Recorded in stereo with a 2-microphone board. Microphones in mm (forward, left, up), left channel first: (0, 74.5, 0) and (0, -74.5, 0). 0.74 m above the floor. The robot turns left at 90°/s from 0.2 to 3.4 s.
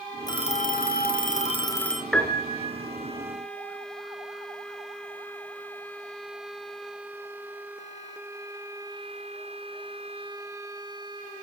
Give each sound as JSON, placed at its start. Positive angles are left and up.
{"t": 0.3, "sound": "a phone ringing", "azimuth_deg": 155, "distance_m": 1.5}
{"t": 2.1, "sound": "a piano", "azimuth_deg": 175, "distance_m": 3.5}